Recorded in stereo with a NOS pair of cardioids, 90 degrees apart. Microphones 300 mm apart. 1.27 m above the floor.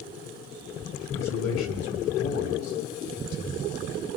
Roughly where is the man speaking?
Ahead left.